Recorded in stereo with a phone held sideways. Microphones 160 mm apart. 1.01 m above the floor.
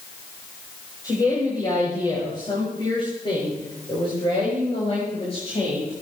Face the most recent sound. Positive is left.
turn(degrees=45)  # may be behind; listen again after turning